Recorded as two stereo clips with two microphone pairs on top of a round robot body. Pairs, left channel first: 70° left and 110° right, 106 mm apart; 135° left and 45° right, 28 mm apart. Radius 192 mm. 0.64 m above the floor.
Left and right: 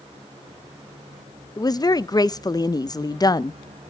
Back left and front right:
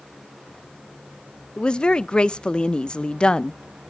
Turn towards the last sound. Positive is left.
turn(degrees=120)